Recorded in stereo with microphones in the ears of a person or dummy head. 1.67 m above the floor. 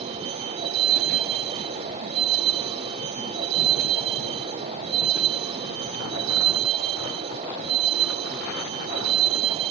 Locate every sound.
0.0 s a vehicle: 40° right (ahead or behind)